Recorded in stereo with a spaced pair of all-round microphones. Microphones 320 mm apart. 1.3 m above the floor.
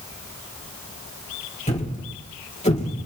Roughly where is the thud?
Left.